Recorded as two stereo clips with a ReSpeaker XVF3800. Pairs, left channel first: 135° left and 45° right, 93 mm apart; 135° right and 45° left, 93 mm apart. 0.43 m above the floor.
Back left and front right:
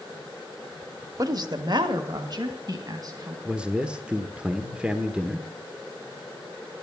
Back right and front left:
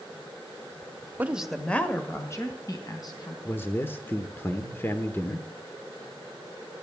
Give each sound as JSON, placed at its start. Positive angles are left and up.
{"t": 1.2, "sound": "a woman speaking", "azimuth_deg": -20, "distance_m": 1.0}
{"t": 3.5, "sound": "a man speaking", "azimuth_deg": -110, "distance_m": 1.0}